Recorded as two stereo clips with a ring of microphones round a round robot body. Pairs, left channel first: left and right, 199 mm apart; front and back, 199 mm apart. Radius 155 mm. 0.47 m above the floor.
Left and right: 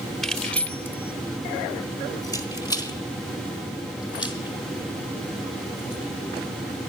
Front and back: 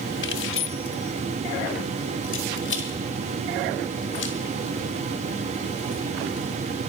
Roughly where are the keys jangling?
Ahead.